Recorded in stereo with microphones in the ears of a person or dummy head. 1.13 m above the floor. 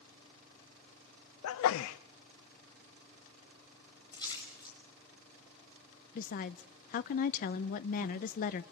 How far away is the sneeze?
About 0.5 m.